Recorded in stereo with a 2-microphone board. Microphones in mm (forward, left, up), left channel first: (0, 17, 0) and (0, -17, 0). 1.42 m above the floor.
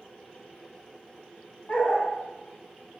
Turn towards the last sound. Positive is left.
turn(degrees=60)  # may be behind; listen again after turning